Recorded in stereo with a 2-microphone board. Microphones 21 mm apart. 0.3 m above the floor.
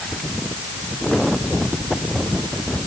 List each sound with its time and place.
Only background noise.